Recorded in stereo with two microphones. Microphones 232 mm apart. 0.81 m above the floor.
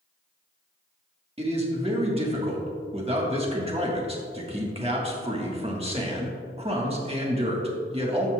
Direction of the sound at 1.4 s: 25° right (ahead or behind).